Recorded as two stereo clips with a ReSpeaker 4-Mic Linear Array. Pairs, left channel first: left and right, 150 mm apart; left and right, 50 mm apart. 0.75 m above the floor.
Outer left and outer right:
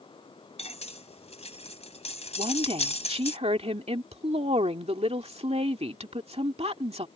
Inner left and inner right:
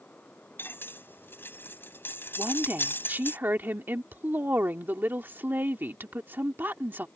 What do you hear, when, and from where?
0.6 s cutlery clinking: 45° left (ahead or behind)
2.4 s a woman speaking: 45° right (ahead or behind)